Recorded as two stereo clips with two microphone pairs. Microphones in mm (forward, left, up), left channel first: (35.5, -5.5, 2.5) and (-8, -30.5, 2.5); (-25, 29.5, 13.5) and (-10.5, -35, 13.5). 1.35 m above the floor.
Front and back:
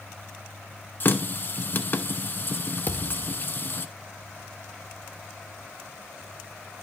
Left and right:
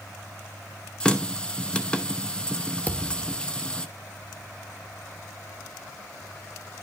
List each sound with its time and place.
1.0 s a running tap: 35° left, 0.7 m
2.9 s a thud: 50° left, 1.2 m